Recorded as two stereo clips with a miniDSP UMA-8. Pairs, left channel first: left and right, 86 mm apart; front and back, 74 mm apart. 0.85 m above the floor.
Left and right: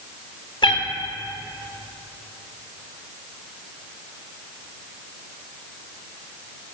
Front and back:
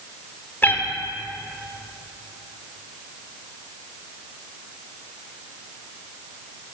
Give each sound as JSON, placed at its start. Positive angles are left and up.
{"t": 0.6, "sound": "a cat meowing", "azimuth_deg": 65, "distance_m": 1.1}